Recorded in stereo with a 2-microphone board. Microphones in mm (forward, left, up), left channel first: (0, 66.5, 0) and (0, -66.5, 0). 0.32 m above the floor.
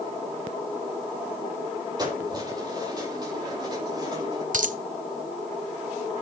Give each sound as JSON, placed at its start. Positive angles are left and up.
{"t": 2.0, "sound": "keys jangling", "side_deg": -30, "distance_m": 8.5}
{"t": 4.5, "sound": "a dropped coin", "side_deg": -70, "distance_m": 0.9}